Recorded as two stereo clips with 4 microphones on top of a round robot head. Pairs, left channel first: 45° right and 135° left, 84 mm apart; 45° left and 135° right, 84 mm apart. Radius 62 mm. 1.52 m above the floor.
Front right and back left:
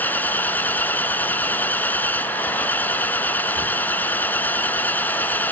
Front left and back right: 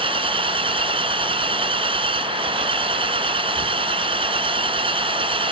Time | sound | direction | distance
0.0 | an engine running | 115° right | ?